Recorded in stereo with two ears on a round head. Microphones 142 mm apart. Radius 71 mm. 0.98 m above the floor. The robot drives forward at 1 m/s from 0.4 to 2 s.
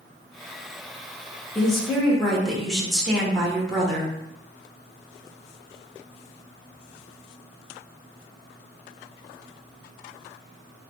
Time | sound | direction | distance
1.6 | a woman speaking | 5° left (ahead or behind) | 0.7 m